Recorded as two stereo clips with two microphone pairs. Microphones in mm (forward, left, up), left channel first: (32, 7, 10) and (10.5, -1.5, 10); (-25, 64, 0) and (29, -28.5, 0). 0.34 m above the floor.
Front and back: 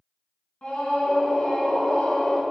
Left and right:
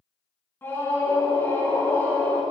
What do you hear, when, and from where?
0.6 s a scream: 55° left, 4.5 m